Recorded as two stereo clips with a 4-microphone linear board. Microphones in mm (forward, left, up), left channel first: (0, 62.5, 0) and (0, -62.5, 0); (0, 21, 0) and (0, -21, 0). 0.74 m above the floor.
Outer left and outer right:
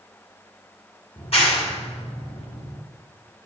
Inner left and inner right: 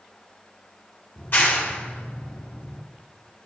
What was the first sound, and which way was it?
A clap, 55° left (ahead or behind).